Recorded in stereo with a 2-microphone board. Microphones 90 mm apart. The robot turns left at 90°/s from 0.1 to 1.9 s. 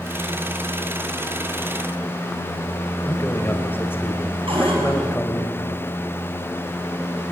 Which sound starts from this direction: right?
A cupboard door, at 4.5 s.